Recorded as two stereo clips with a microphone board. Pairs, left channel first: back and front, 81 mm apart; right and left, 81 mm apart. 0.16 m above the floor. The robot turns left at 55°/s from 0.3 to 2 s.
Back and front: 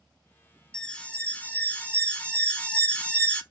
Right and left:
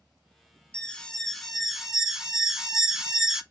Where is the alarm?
135° right, 0.7 m; by 3.4 s 155° left, 0.7 m.